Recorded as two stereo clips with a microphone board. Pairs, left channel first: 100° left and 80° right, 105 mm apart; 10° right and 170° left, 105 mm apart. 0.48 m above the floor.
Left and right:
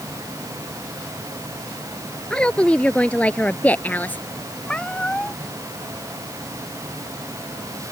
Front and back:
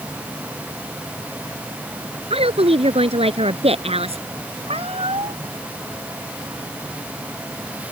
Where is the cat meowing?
Straight behind.